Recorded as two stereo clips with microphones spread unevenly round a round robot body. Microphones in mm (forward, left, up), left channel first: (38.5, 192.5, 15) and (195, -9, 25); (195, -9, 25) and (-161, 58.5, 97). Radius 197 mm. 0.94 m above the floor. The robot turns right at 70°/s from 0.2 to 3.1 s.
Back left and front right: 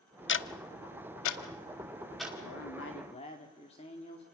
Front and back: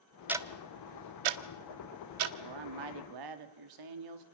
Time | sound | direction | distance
0.3 | ticking | 85° left | 1.2 m
2.4 | a man speaking | 150° left | 2.5 m